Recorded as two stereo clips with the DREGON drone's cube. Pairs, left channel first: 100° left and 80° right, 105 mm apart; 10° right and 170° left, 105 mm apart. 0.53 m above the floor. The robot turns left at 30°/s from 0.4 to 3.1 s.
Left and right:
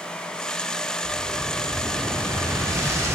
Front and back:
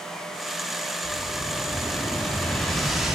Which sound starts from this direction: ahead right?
An explosion, at 1.0 s.